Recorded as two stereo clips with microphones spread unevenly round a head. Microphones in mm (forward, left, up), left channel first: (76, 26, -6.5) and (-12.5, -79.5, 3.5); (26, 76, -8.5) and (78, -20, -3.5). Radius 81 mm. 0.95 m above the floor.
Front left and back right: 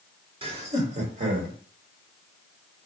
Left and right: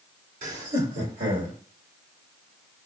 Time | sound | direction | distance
0.4 | laughter | 80° right | 1.7 m